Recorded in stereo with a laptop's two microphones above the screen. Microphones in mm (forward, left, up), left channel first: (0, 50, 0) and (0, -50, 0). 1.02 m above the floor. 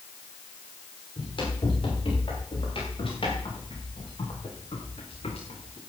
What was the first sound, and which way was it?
Running footsteps, 55° left (ahead or behind).